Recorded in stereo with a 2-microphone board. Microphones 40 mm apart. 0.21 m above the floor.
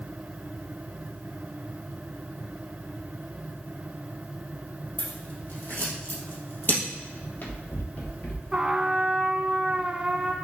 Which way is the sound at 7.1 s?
50° left (ahead or behind).